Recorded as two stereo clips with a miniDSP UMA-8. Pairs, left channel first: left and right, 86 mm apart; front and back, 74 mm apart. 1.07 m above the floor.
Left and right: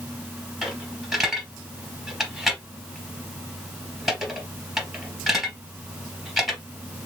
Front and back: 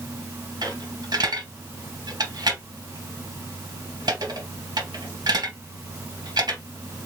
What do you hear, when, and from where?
0.6 s a dropped coin: 175° right, 2.5 m